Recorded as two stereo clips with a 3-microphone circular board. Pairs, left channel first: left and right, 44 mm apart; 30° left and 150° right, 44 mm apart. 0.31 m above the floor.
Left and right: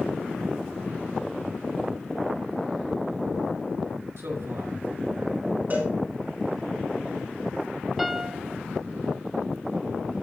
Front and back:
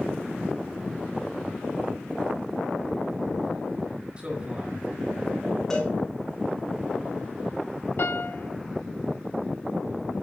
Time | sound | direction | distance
4.2 | a man speaking | 85° right | 3.5 m
5.7 | a cowbell | 45° right | 6 m
8.0 | a piano | 5° right | 0.5 m